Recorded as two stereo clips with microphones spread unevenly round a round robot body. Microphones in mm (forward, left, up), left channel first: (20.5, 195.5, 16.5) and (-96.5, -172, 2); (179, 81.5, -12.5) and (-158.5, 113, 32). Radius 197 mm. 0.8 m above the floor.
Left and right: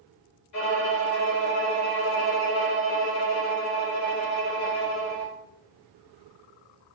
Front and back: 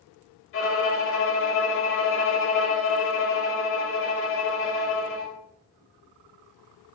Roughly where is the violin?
Ahead left.